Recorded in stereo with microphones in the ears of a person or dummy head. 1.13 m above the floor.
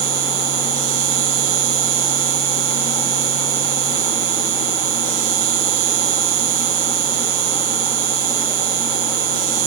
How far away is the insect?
About 3 m.